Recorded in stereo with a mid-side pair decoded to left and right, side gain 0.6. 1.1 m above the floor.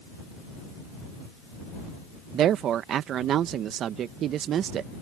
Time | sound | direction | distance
2.3 | a woman speaking | 55° right | ?